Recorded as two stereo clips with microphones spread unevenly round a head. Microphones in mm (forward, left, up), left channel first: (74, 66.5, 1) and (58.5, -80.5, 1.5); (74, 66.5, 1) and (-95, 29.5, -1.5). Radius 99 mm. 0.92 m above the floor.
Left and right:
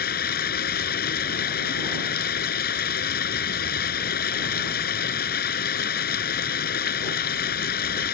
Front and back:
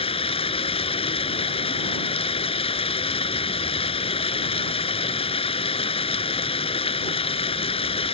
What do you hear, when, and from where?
0.0 s running water: 70° left